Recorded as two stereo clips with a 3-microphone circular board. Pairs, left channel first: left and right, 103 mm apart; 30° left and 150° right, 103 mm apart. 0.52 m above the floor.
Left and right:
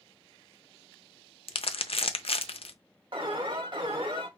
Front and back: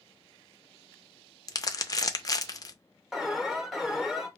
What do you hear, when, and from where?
1.5 s crumpling: 80° left, 0.5 m
3.1 s an alarm: 60° right, 1.0 m